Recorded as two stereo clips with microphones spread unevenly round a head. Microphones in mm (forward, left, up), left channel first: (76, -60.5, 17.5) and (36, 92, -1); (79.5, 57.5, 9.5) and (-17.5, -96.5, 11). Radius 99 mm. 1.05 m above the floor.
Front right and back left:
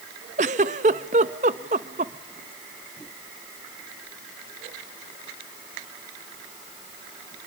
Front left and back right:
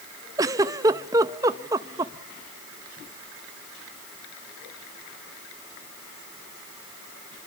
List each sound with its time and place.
0.4 s a giggle: 165° left, 0.6 m